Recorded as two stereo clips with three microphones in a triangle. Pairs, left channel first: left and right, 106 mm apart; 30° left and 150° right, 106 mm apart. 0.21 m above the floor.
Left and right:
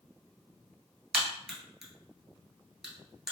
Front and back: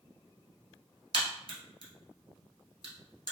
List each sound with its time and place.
1.1 s a crack: 175° right, 1.3 m